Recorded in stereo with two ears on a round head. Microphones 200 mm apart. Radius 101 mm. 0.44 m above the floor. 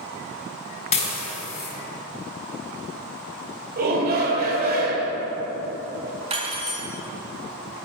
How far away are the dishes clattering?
About 2.5 m.